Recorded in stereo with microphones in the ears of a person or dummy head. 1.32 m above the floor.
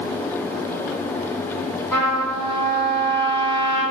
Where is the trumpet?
15° left (ahead or behind), 1.2 m.